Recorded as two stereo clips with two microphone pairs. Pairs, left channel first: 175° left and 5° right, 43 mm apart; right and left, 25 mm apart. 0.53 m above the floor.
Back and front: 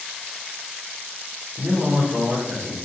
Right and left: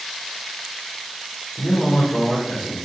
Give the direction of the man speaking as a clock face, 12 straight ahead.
2 o'clock.